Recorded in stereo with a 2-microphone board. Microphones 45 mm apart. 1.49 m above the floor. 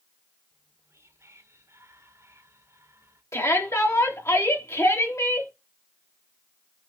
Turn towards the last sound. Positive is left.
turn(degrees=85)